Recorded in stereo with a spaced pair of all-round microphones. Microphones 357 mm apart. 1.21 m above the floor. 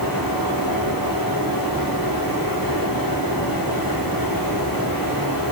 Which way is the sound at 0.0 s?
70° left (ahead or behind).